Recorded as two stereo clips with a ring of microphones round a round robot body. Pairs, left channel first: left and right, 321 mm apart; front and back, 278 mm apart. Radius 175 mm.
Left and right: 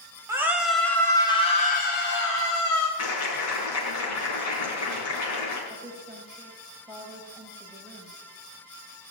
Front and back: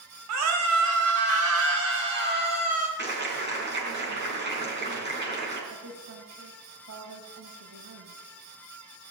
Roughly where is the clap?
Behind left.